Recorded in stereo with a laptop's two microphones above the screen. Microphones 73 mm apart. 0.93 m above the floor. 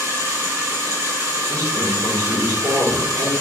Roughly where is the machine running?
Right.